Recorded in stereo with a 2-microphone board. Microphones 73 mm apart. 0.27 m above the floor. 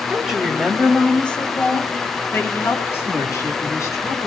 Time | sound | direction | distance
0.1 | a woman speaking | 15° right (ahead or behind) | 1.6 m